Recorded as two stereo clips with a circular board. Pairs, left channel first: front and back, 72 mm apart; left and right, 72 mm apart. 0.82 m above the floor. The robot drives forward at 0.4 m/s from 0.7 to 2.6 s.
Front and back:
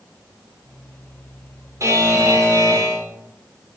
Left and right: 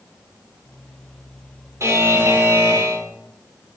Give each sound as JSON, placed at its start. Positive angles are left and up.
{"t": 1.8, "sound": "a buzzer", "azimuth_deg": -135, "distance_m": 1.3}